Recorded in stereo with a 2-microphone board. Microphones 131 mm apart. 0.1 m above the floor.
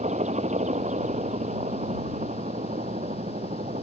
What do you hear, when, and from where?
0.0 s a helicopter: 60° right (ahead or behind); by 3.8 s 65° right (ahead or behind)